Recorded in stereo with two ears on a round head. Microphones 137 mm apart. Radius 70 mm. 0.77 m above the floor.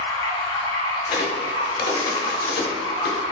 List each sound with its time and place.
0.0 s running water: 25° left (ahead or behind), 1.8 m
1.1 s a crack: 70° left (ahead or behind), 0.9 m